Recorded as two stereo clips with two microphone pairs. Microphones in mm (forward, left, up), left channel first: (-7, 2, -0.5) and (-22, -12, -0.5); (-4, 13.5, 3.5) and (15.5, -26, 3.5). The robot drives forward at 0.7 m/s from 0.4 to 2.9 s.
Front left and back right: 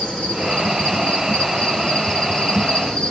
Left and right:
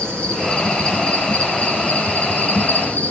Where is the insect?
50° left, 6.5 m; by 3.1 s 65° left, 5.5 m.